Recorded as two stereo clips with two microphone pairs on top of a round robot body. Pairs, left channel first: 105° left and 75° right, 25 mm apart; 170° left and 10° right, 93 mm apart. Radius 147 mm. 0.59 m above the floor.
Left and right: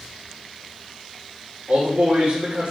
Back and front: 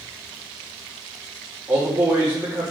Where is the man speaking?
75° right, 2.5 m.